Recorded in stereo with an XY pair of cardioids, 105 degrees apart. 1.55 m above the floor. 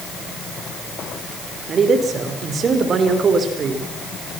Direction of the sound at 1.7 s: 50° right.